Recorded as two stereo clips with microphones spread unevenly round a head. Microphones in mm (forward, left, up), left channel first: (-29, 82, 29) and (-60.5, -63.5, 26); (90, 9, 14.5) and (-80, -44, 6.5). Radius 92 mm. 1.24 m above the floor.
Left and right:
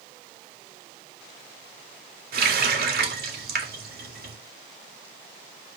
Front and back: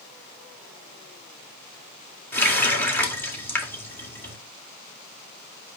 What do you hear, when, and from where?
2.3 s a running tap: 60° right, 1.9 m